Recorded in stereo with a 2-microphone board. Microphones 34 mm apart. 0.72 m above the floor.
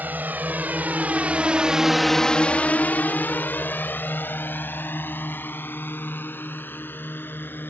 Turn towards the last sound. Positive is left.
turn(degrees=75)  # may be behind; listen again after turning